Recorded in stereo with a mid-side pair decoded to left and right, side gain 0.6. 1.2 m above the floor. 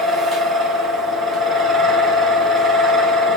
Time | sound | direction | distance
0.0 | a fan | 25° right | 1.5 m